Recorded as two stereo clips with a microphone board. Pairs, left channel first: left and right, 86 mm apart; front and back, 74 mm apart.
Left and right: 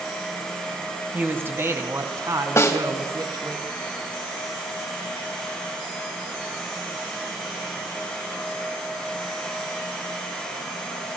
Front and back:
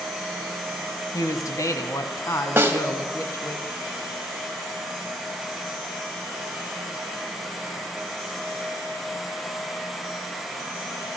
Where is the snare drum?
130° left, 1.9 m.